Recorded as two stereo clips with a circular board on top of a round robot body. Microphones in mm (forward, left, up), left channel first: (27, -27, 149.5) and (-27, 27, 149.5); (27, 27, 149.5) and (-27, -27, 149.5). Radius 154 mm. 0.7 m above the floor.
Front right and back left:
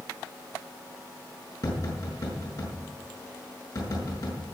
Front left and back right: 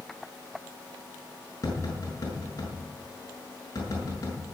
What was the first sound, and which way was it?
Tapping, 5° right.